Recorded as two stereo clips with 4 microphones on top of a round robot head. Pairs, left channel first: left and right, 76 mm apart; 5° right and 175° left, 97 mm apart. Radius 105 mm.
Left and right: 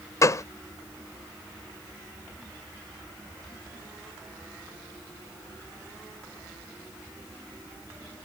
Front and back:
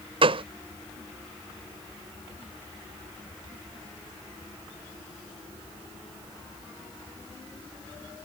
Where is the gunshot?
140° left.